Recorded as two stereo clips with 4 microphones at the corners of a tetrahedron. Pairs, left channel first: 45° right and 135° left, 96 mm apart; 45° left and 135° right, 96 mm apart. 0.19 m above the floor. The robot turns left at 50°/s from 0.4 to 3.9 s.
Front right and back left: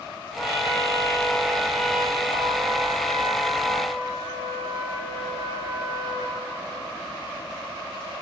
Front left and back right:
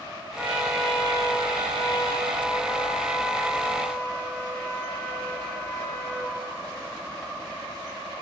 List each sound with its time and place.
0.4 s a trumpet: 65° right, 3.5 m; by 6.4 s 120° left, 3.5 m